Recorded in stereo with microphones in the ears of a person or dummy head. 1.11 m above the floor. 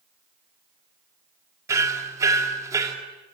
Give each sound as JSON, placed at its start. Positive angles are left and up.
{"t": 1.7, "sound": "hammering", "side_deg": -20, "distance_m": 2.0}